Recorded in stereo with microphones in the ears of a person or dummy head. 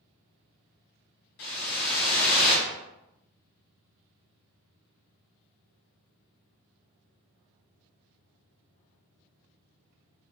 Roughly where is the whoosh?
Left.